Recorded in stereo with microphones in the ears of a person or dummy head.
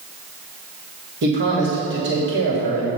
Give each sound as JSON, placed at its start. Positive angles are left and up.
{"t": 1.2, "sound": "a man speaking", "side_deg": -55, "distance_m": 2.5}